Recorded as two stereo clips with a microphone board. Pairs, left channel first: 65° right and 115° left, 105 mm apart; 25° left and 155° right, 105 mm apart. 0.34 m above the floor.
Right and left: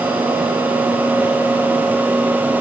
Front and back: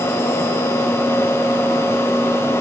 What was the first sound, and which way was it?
Only background noise.